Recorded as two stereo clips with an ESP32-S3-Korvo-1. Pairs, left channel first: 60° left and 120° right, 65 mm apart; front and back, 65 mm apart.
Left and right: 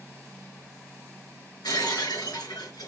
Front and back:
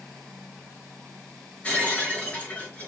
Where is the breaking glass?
70° left, 4.5 m.